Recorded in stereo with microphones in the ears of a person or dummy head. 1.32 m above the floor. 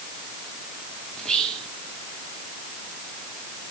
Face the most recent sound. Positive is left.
turn(degrees=10)  # may be behind; listen again after turning